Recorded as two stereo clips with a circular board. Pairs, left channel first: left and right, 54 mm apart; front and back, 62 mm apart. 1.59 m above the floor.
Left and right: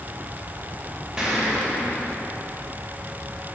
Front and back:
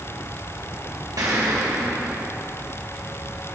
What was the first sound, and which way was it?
An explosion, 170° right.